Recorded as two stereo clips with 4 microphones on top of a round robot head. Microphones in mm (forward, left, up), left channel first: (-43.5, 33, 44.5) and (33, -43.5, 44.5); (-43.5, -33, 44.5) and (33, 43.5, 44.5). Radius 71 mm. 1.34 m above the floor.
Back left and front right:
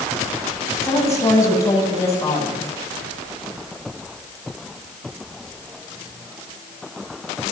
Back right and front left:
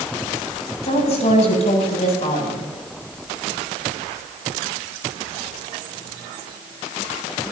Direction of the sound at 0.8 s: 165° right.